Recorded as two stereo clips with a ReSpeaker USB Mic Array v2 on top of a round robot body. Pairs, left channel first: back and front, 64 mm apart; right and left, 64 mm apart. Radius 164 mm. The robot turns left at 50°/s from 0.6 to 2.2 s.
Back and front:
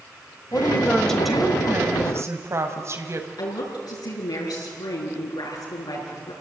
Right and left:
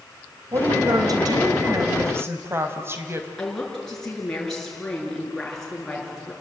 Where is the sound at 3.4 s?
170° right, 7 m.